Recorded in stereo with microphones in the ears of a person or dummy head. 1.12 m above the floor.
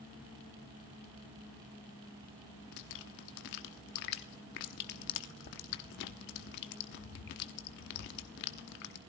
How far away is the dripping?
About 0.8 m.